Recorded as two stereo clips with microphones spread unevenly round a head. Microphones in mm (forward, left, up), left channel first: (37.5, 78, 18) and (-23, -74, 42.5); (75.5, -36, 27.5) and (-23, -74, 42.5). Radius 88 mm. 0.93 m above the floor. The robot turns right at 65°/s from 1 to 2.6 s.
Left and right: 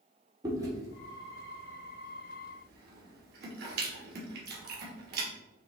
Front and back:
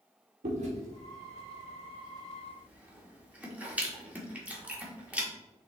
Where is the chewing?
175° left, 1.3 m; by 5.3 s 80° right, 1.3 m.